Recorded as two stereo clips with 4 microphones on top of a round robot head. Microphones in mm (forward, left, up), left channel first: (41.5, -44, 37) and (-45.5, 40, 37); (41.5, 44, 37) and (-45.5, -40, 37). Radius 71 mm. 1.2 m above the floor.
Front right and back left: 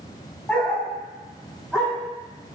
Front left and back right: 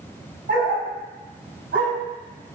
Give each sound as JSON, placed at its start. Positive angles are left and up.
{"t": 0.5, "sound": "a dog barking", "azimuth_deg": -130, "distance_m": 4.0}